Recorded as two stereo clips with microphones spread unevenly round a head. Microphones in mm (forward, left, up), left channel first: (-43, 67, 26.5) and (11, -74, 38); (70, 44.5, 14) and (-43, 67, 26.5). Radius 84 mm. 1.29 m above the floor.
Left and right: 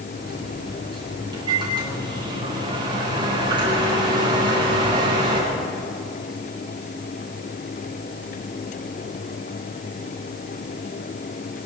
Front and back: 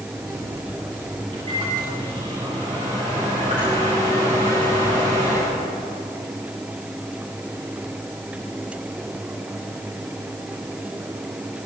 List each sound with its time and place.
0.1 s a microwave: 130° right, 9 m